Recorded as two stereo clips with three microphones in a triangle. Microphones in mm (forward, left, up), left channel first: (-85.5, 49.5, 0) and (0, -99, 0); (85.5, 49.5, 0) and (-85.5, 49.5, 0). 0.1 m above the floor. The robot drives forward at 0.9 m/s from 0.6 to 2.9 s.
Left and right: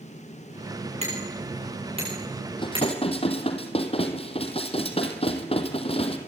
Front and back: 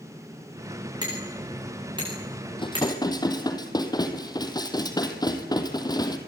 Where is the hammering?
110° right, 9.5 m; by 2.9 s 120° right, 10.5 m.